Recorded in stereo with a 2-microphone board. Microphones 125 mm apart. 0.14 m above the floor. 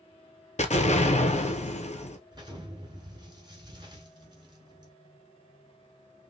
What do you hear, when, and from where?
0.6 s an explosion: 60° left (ahead or behind), 0.6 m
2.3 s an explosion: 35° right (ahead or behind), 1.3 m